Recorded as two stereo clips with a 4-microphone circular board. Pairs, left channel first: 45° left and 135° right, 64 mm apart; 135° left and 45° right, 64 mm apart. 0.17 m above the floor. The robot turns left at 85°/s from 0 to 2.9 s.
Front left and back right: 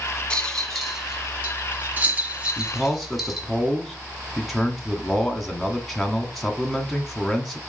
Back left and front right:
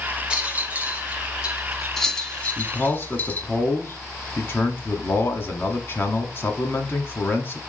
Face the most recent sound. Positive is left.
turn(degrees=130)